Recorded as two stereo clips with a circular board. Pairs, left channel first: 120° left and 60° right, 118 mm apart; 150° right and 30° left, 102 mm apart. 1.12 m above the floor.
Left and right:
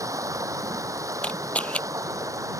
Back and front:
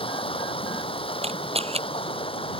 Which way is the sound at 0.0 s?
125° right.